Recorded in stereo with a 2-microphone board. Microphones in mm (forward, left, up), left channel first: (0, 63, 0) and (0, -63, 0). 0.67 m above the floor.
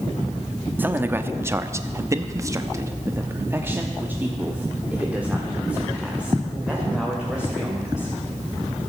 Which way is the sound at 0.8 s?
15° right (ahead or behind).